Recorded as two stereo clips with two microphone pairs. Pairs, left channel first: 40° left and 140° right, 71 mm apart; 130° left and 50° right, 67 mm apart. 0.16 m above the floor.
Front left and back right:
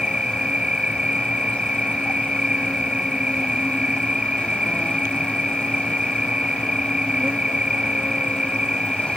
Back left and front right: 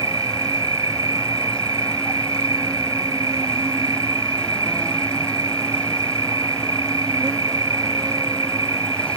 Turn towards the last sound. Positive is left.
turn(degrees=-65)